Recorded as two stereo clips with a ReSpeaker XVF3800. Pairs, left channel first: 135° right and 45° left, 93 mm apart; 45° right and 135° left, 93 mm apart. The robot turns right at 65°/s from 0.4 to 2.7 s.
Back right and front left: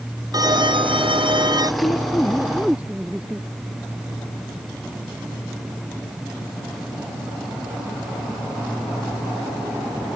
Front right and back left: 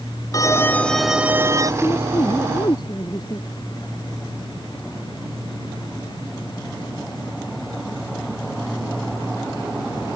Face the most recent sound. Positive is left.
turn(degrees=-30)